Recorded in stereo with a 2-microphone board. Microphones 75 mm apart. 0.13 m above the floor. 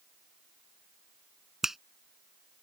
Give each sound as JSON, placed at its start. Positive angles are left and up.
{"t": 1.6, "sound": "a finger snap", "side_deg": -5}